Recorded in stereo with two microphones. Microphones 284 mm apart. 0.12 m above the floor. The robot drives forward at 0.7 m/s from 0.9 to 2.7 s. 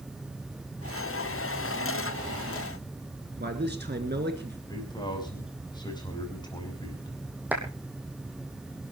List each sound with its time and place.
3.4 s a man speaking: 35° right (ahead or behind), 1.7 m
4.7 s a man speaking: 15° left (ahead or behind), 5.5 m
7.5 s a clap: 5° right (ahead or behind), 3.5 m